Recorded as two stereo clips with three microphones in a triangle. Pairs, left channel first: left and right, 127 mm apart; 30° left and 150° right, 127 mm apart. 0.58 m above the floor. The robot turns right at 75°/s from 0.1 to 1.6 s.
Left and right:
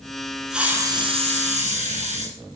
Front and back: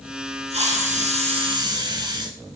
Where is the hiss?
175° right, 2 m; by 2.4 s 95° right, 2 m.